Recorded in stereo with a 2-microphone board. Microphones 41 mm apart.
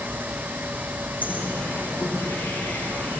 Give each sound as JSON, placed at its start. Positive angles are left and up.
{"t": 1.2, "sound": "a bird", "side_deg": 45, "distance_m": 6.0}